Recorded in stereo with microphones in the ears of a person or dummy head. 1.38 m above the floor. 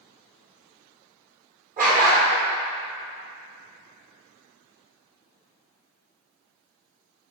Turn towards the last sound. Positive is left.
turn(degrees=-50)  # may be behind; listen again after turning